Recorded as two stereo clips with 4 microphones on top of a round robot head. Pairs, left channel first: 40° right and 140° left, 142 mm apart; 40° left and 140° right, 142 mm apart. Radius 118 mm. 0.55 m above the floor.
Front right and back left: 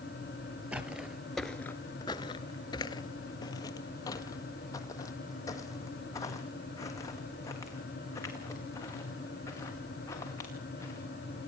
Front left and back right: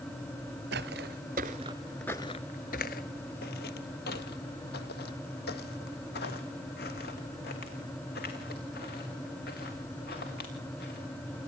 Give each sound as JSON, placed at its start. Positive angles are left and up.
{"t": 0.7, "sound": "footsteps", "azimuth_deg": -140, "distance_m": 0.8}